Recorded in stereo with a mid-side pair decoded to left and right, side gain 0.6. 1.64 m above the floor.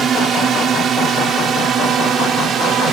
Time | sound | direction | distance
0.0 | a drone | 40° right | ?